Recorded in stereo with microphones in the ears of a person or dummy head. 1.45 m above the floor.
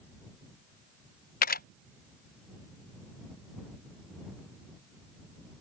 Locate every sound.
1.4 s a camera shutter: 40° left (ahead or behind)